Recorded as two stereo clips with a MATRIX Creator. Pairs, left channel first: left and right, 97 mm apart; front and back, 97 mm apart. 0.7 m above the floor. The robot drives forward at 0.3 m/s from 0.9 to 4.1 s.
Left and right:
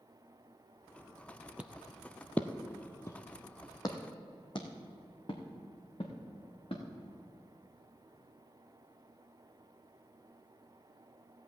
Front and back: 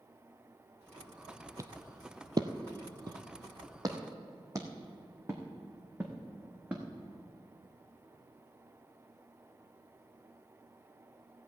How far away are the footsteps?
About 0.8 m.